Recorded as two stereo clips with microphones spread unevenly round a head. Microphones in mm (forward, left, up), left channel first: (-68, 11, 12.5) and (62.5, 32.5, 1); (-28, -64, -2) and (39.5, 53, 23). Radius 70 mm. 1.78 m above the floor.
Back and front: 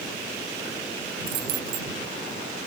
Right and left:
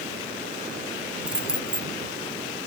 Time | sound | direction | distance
1.3 | keys jangling | 20° right | ?